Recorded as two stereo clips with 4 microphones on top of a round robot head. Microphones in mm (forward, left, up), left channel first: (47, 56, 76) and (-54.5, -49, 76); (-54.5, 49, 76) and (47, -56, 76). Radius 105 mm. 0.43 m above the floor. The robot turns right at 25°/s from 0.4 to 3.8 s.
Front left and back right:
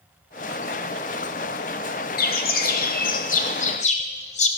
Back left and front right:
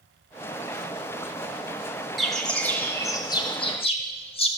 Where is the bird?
45° left, 1.7 m; by 4.5 s 85° left, 1.7 m.